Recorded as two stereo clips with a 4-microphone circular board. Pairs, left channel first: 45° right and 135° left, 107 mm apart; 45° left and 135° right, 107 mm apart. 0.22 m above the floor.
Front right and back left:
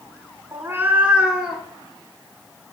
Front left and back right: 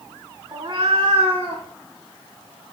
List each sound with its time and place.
0.5 s a cat meowing: 175° right, 0.5 m; by 1.6 s 140° right, 1.3 m